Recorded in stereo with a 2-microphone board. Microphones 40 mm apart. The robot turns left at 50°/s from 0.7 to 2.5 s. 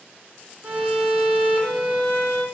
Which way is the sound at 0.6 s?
25° right (ahead or behind).